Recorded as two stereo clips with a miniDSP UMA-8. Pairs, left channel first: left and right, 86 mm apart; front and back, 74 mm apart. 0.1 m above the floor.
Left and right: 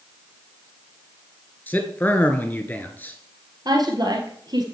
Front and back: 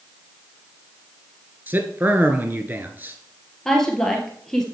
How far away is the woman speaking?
About 2 m.